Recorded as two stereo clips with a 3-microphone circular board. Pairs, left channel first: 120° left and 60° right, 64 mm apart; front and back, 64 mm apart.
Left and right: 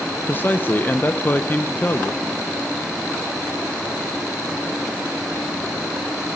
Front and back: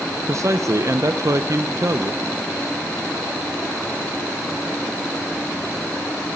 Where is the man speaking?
170° left, 0.6 m.